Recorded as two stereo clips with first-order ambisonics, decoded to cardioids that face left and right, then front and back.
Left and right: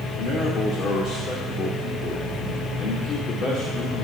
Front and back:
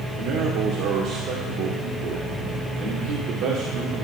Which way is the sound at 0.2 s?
145° left.